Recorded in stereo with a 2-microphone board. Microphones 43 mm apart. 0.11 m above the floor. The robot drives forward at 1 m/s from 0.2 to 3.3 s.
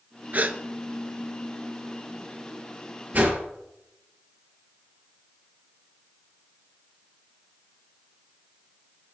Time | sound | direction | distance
0.3 | a gasp | 40° right (ahead or behind) | 0.7 m
3.1 | a whoosh | 40° right (ahead or behind) | 2.5 m